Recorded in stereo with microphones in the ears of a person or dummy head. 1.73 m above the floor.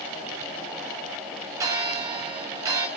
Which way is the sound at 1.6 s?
15° right (ahead or behind).